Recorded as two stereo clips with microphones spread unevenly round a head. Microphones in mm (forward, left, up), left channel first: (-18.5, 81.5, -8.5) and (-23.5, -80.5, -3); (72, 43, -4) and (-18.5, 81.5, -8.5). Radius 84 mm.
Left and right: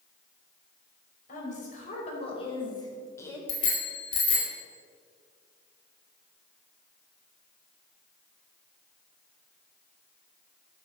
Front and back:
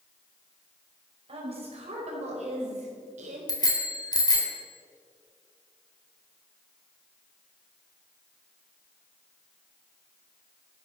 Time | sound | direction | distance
1.3 | a woman speaking | 135° left | 5.5 m
3.5 | a bicycle bell | 25° left | 4 m